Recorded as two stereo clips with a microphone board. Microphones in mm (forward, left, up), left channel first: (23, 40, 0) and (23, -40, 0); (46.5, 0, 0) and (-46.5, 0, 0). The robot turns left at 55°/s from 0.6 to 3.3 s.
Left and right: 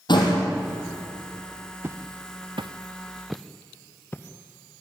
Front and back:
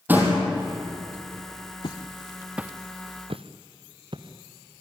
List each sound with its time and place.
0.1 s a door slam: 110° left, 4 m
1.8 s footsteps: 30° right, 1.1 m; by 4.8 s 145° left, 1.9 m